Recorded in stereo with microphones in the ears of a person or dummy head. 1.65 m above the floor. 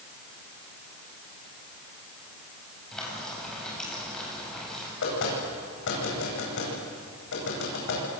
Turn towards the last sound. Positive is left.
turn(degrees=70)  # may be behind; listen again after turning